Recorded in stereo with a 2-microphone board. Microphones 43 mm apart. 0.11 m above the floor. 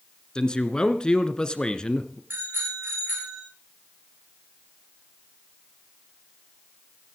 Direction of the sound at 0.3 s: 20° left (ahead or behind).